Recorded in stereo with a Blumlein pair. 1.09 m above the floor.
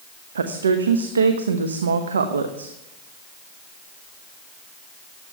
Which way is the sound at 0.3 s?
70° right.